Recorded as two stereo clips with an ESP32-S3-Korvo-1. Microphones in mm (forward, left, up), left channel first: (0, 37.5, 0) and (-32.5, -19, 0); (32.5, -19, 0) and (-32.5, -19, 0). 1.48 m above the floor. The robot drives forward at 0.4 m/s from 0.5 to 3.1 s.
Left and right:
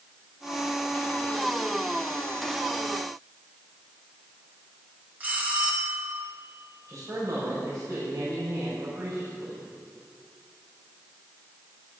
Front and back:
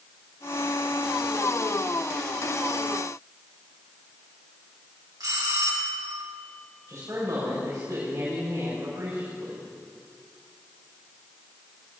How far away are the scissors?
I don't hear scissors.